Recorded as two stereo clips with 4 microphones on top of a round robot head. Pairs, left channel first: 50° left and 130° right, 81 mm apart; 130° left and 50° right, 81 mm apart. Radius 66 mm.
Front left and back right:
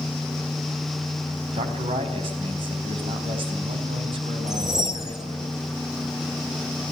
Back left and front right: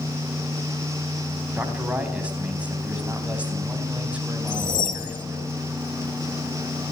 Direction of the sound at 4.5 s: 150° left.